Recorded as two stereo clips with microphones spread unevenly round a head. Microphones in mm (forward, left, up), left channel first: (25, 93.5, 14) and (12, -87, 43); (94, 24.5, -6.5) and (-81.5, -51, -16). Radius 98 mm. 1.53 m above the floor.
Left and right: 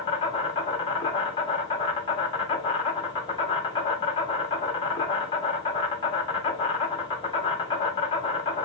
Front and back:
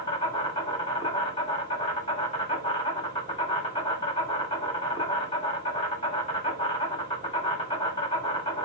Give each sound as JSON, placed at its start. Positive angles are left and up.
{"t": 0.0, "sound": "an insect", "azimuth_deg": 70, "distance_m": 1.2}